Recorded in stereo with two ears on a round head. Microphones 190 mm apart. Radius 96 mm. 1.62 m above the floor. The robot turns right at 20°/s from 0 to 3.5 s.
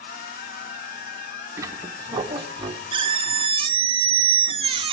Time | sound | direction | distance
1.6 | a squeak | 15° right (ahead or behind) | 0.7 m